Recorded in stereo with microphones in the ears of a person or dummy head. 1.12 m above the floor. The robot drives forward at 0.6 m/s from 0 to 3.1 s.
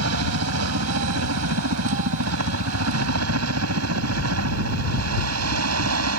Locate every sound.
0.0 s a helicopter: 80° right